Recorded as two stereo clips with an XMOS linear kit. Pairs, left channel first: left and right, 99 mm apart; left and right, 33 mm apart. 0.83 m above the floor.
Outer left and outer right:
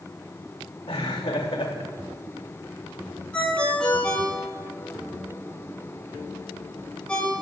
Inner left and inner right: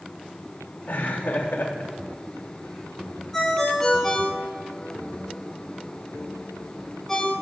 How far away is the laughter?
About 2.5 m.